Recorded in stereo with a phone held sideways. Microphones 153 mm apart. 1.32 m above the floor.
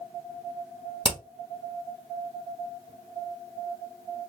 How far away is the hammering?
About 1.2 m.